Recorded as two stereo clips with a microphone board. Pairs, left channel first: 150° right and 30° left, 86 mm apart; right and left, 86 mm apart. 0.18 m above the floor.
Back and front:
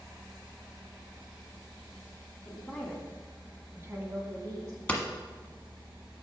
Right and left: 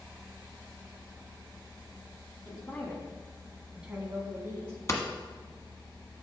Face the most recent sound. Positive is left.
turn(degrees=-85)